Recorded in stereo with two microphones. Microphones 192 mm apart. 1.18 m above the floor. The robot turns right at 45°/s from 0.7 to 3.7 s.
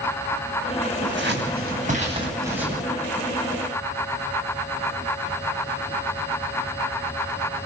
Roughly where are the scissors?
Right.